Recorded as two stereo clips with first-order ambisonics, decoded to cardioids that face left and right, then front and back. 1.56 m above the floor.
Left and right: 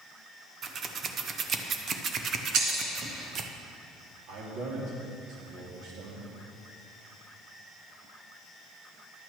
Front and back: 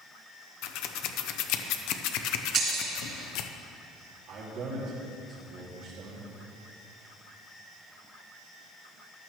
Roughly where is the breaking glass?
Behind right.